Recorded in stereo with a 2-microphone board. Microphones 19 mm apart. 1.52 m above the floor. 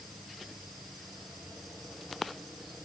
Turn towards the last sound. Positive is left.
No sound to turn to.